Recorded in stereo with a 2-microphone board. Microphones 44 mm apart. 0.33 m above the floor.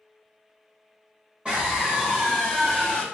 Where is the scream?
25° right (ahead or behind), 1.2 m; by 3.0 s 15° left (ahead or behind), 1.3 m.